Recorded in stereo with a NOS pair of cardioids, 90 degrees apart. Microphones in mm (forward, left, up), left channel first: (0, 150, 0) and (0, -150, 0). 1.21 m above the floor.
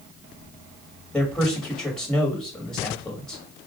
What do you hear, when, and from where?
1.1 s a man speaking: 5° left, 1.8 m